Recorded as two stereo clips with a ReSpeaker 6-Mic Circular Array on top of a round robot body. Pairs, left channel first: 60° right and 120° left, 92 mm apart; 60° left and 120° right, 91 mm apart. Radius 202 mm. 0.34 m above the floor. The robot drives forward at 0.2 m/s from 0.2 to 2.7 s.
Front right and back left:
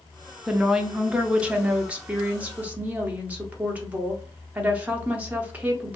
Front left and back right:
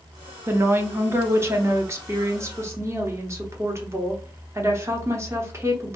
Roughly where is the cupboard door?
I don't hear a cupboard door.